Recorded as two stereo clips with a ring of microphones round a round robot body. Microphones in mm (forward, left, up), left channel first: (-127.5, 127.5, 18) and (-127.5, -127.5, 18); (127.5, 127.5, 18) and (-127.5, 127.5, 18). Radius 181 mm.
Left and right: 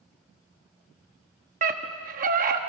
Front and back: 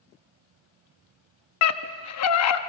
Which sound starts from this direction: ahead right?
A scream, at 1.6 s.